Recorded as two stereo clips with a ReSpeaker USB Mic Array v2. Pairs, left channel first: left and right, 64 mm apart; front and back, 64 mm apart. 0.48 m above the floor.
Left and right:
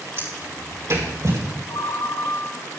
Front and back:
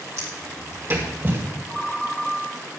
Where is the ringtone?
90° left, 0.9 m.